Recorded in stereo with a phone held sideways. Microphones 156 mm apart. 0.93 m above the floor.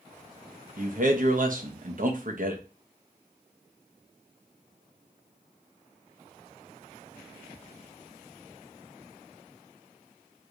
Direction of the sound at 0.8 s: 60° right (ahead or behind).